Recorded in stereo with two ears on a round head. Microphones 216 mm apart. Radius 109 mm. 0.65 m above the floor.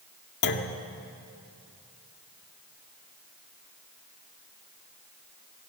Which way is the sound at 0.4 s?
50° left (ahead or behind).